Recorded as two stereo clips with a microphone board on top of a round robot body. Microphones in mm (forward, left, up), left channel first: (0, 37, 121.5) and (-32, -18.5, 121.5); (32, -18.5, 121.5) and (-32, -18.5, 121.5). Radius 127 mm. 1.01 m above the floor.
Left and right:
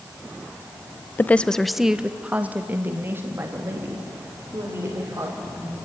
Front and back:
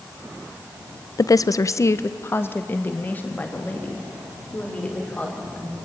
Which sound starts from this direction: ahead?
A woman speaking, at 1.2 s.